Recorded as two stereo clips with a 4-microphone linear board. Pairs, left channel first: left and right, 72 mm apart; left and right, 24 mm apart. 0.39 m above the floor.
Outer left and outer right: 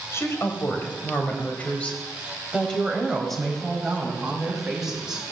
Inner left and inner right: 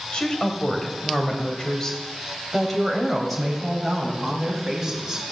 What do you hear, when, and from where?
0.1 s a woman speaking: 40° left (ahead or behind), 2.5 m; by 5.3 s 10° right (ahead or behind), 3.5 m